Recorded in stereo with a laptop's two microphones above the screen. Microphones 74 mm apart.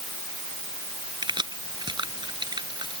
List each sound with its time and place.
1.2 s keys jangling: 85° right